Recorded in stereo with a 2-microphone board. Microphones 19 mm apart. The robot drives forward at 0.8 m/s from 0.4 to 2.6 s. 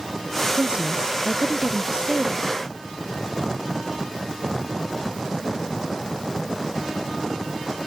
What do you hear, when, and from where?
0.6 s a woman speaking: 75° right (ahead or behind); by 2.6 s 70° right (ahead or behind)